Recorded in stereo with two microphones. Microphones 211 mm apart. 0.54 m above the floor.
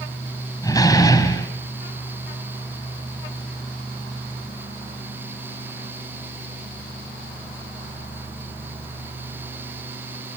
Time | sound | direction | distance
0.6 | a door slam | 15° left (ahead or behind) | 3 m